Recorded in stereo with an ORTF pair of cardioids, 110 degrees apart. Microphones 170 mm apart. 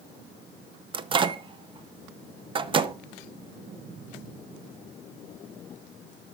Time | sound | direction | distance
0.9 | a microwave | 30° right | 0.6 m